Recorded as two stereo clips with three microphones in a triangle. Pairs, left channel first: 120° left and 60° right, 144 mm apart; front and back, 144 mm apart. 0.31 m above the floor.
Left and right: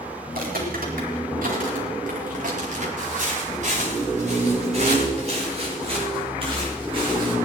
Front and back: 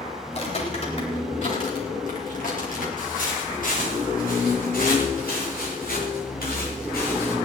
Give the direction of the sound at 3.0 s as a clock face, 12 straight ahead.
1 o'clock.